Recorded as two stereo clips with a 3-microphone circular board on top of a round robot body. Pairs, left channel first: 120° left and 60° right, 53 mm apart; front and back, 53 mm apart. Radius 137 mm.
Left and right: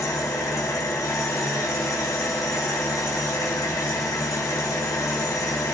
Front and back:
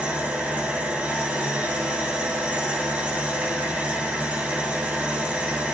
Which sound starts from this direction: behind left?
An engine running, at 0.0 s.